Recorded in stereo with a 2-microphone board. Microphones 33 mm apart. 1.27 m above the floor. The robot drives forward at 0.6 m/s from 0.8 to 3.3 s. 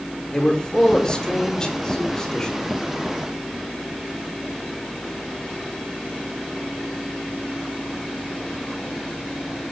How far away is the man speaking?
About 5 m.